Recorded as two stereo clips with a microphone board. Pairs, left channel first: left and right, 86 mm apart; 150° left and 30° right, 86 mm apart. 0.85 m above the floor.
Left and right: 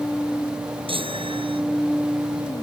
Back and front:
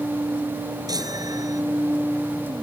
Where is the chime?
75° right.